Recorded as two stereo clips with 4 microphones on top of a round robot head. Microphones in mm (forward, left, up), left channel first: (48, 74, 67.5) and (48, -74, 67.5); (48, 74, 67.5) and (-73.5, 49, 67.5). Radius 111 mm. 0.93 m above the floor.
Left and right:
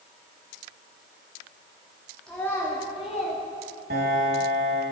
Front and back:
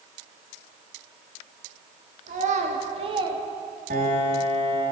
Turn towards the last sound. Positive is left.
turn(degrees=-130)